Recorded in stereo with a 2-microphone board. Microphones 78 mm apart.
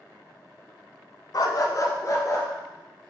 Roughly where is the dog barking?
Left.